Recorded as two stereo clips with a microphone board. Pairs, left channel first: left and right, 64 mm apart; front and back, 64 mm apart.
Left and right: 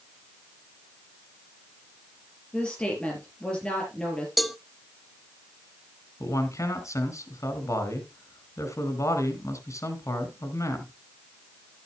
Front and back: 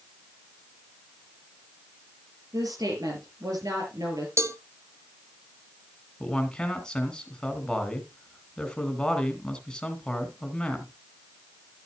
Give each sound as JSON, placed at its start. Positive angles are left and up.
{"t": 2.5, "sound": "a woman speaking", "azimuth_deg": 165, "distance_m": 5.0}
{"t": 4.4, "sound": "a cowbell", "azimuth_deg": 180, "distance_m": 0.7}
{"t": 6.2, "sound": "a man speaking", "azimuth_deg": 75, "distance_m": 3.0}